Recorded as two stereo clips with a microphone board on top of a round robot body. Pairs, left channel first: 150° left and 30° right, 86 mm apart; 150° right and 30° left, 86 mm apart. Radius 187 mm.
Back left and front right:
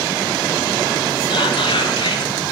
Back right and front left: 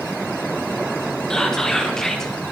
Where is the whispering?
125° left, 1.3 m.